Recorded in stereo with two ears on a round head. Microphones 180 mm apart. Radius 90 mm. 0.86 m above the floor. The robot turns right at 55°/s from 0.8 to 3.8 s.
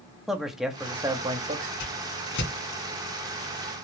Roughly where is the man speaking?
Behind.